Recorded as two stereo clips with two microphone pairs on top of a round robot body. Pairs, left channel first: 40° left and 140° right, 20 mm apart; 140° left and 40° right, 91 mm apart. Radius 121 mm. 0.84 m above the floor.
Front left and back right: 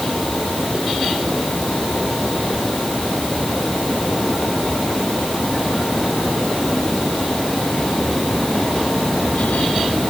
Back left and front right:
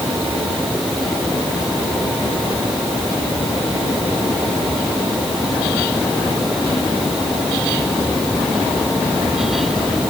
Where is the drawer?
No drawer in this recording.